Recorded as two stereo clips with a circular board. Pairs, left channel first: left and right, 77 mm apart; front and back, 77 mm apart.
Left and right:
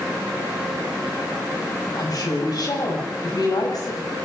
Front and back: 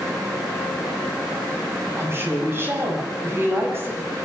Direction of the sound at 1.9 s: 120° left.